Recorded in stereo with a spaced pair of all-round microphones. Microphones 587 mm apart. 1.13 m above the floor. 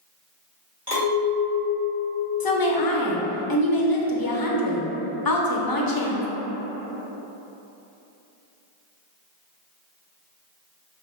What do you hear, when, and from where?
0.9 s a clink: 40° right (ahead or behind), 1.5 m
2.4 s a woman speaking: 40° left (ahead or behind), 0.5 m